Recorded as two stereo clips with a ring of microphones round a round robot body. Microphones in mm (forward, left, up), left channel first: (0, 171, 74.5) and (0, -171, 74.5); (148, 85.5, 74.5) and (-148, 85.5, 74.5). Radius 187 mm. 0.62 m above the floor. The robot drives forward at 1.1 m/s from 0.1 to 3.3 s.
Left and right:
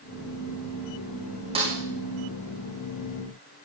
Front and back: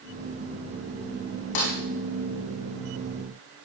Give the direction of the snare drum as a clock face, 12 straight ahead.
1 o'clock.